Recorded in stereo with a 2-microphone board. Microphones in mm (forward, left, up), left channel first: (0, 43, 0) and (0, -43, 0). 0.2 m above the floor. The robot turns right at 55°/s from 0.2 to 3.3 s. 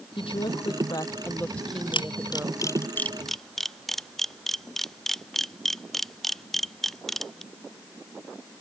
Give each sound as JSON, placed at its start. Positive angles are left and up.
{"t": 0.2, "sound": "a woman speaking", "azimuth_deg": 90}
{"t": 1.9, "sound": "a camera shutter", "side_deg": 80}